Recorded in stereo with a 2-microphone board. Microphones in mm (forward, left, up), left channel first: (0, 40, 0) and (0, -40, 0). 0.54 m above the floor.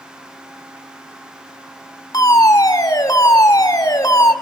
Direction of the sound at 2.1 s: 45° left (ahead or behind).